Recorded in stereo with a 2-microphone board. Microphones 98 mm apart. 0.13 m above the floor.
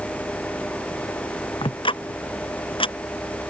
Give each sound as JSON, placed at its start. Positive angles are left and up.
{"t": 1.6, "sound": "ticking", "side_deg": 60}